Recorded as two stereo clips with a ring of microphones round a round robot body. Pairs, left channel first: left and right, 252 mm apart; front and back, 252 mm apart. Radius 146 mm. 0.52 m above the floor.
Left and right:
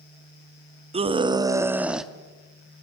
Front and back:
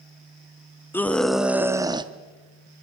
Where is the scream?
70° right, 1.1 m; by 2.1 s straight behind, 1.0 m.